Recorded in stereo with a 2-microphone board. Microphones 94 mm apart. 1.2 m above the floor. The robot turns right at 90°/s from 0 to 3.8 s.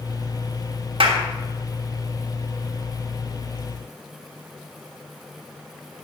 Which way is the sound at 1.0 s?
75° right (ahead or behind).